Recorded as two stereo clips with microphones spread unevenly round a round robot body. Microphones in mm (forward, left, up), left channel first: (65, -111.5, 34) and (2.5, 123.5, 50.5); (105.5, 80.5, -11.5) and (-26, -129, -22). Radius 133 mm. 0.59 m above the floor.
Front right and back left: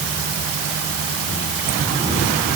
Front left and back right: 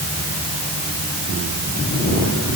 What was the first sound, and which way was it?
Only background noise.